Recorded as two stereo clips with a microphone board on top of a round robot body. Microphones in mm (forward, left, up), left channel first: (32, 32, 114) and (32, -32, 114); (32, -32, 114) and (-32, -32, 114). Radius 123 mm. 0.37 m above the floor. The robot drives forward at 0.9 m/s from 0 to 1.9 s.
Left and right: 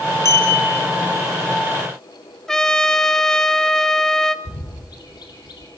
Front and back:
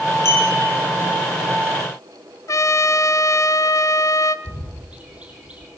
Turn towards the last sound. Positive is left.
turn(degrees=110)